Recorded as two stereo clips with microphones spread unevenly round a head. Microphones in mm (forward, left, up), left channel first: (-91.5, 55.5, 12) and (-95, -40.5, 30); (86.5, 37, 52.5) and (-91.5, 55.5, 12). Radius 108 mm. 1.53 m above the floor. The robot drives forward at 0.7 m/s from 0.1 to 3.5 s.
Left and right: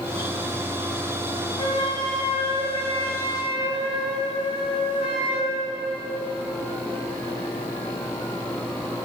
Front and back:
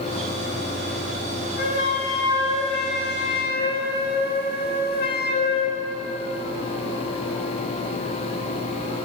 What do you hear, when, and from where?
1.6 s a flute: 20° left, 4 m; by 5.8 s 25° left, 3 m